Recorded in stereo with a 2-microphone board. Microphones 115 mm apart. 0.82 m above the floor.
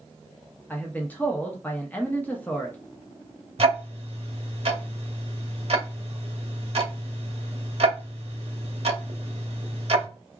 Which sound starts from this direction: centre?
A man speaking, at 0.7 s.